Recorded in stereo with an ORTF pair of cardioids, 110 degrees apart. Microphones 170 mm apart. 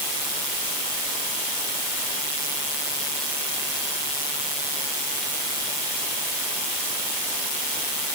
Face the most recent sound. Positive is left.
No sound to turn to.